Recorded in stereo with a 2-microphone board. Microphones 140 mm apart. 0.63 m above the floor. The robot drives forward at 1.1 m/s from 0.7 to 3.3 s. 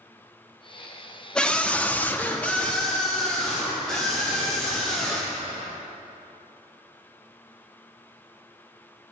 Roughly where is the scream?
Centre.